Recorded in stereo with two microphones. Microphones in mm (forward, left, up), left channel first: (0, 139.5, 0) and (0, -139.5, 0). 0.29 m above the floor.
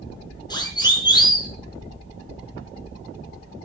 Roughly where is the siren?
Centre.